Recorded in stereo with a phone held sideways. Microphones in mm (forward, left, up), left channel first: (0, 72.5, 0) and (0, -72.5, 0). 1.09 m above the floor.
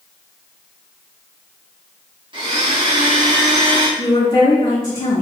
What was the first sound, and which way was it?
A blender, 35° right (ahead or behind).